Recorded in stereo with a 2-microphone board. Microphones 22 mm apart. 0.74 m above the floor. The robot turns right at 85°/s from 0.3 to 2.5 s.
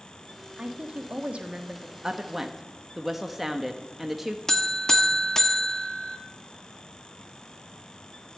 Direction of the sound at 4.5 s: 20° left (ahead or behind).